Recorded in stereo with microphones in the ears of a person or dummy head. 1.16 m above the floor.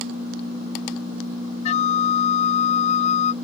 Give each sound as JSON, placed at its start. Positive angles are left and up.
{"t": 1.6, "sound": "a flute", "side_deg": 40}